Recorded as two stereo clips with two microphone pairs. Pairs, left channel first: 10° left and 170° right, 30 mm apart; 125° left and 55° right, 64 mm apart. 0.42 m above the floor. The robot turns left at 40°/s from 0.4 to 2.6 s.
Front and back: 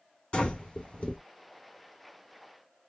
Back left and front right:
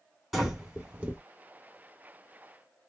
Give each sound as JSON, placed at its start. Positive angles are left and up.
{"t": 0.3, "sound": "breathing", "azimuth_deg": 30, "distance_m": 1.7}